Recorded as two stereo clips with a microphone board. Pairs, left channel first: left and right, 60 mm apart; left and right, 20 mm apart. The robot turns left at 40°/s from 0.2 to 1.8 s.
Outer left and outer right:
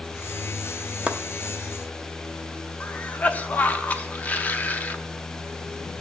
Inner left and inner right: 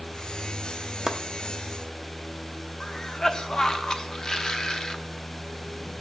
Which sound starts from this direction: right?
Chopping, at 1.1 s.